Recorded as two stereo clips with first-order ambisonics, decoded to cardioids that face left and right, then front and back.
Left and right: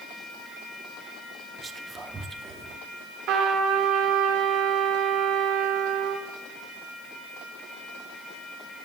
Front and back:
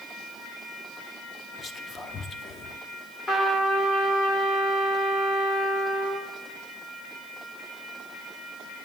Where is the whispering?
40° right, 0.8 m.